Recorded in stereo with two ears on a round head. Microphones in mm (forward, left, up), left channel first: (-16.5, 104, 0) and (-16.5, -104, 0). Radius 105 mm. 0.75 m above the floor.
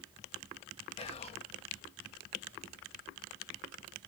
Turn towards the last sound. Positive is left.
turn(degrees=25)  # may be behind; listen again after turning